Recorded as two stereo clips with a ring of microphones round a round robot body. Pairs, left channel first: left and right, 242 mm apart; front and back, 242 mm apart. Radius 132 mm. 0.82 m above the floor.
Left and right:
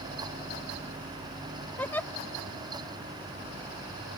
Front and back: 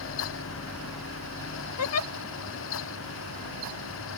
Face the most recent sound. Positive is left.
turn(degrees=5)